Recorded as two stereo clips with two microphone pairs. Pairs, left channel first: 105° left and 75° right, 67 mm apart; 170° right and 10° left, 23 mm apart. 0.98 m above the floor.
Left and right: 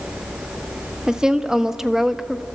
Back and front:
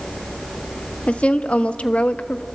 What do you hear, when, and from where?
1.1 s a woman speaking: 155° right, 1.4 m; by 2.5 s 165° right, 0.7 m